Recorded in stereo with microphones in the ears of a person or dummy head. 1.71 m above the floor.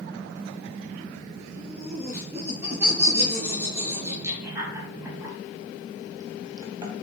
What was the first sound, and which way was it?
Laughter, 5° right (ahead or behind).